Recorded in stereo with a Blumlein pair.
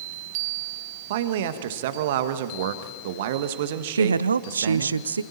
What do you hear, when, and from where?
1.1 s a man speaking: 55° right, 1.5 m
4.0 s a woman speaking: 70° right, 0.6 m